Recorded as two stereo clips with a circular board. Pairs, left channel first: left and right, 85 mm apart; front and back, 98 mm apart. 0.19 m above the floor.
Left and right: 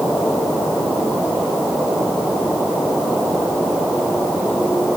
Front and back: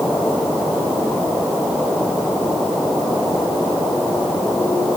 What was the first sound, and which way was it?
Only background noise.